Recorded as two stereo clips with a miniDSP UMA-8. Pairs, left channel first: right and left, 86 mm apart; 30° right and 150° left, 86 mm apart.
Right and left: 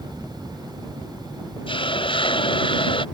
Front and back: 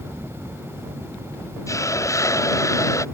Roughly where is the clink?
I don't hear a clink.